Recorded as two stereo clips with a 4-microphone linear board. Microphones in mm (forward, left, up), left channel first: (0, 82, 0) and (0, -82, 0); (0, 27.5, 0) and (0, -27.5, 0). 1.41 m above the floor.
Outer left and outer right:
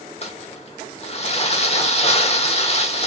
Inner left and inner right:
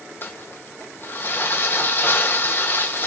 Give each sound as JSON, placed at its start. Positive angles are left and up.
{"t": 0.2, "sound": "crumpling", "side_deg": 40, "distance_m": 1.3}